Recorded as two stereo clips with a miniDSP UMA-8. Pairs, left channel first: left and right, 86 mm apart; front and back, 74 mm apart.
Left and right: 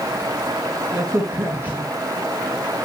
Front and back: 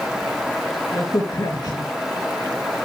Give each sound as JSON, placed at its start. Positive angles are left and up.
{"t": 0.9, "sound": "a crack", "azimuth_deg": -20, "distance_m": 4.0}